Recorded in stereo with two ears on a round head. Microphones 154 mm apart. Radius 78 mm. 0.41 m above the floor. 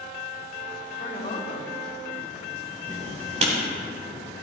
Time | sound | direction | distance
1.0 | a woman speaking | 45° left (ahead or behind) | 2.0 m
2.9 | writing | 45° right (ahead or behind) | 3.5 m